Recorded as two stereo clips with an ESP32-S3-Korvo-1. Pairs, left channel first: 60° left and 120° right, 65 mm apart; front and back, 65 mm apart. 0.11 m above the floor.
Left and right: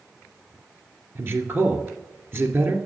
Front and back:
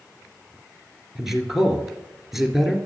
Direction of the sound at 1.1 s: 95° right.